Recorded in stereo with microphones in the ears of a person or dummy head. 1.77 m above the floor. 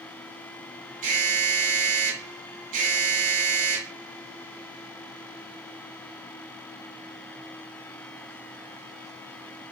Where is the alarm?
45° right (ahead or behind), 6.5 m.